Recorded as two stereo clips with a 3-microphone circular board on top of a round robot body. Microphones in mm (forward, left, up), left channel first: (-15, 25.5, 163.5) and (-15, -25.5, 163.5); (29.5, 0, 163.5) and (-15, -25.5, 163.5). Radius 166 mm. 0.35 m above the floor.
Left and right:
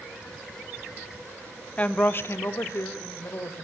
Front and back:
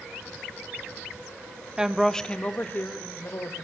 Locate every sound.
1.8 s a woman speaking: 140° left, 1.2 m; by 3.6 s 55° left, 2.5 m